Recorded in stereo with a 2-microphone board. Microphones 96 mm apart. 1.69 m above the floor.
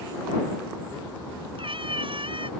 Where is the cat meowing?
75° right (ahead or behind).